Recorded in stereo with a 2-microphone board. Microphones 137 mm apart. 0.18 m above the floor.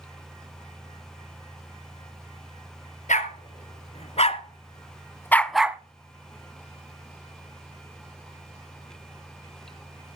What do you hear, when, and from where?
3.1 s a dog barking: 60° left (ahead or behind), 1.6 m; by 5.8 s 15° right (ahead or behind), 0.6 m